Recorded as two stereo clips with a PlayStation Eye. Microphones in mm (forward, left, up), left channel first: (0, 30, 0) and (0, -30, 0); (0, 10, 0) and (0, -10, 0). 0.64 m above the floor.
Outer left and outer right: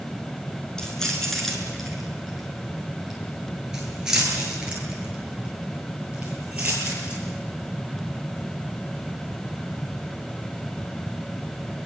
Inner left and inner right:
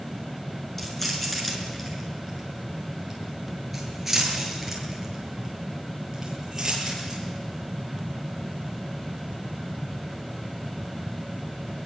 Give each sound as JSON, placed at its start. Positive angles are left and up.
{"t": 0.8, "sound": "keys jangling", "side_deg": 10, "distance_m": 6.5}